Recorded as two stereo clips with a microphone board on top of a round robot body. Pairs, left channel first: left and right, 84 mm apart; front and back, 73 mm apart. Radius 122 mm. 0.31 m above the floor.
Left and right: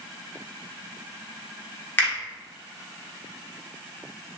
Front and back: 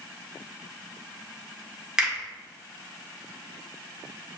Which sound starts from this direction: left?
A finger snap, at 2.0 s.